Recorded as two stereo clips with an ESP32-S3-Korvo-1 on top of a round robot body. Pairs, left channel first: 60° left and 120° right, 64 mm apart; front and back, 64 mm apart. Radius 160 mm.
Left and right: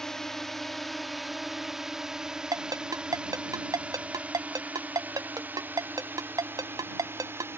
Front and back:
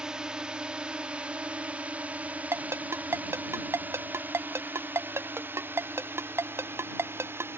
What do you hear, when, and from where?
0.0 s a drone: 125° left; by 7.6 s 150° right
2.5 s a ringtone: 130° right